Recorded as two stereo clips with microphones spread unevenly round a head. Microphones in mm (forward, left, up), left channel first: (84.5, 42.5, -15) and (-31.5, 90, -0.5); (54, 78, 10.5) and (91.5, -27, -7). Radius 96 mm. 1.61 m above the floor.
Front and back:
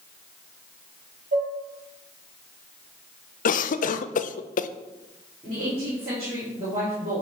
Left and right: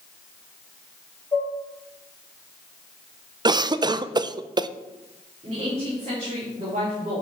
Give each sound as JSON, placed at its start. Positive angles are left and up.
{"t": 1.3, "sound": "dishes clattering", "azimuth_deg": 180, "distance_m": 2.5}
{"t": 3.5, "sound": "a cough", "azimuth_deg": -20, "distance_m": 0.6}
{"t": 5.4, "sound": "a woman speaking", "azimuth_deg": -135, "distance_m": 3.5}